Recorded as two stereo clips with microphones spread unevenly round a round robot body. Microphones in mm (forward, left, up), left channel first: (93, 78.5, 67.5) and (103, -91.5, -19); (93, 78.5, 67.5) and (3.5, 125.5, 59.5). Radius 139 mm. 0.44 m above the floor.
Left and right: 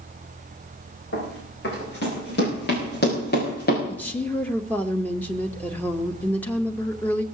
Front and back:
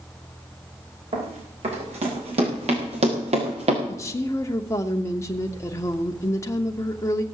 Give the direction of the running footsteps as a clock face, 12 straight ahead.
7 o'clock.